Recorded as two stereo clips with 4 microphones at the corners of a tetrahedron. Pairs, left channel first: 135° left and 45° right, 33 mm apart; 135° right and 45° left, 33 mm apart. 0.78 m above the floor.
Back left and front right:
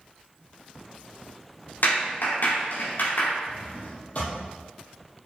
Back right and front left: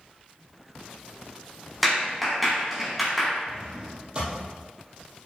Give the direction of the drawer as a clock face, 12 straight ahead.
9 o'clock.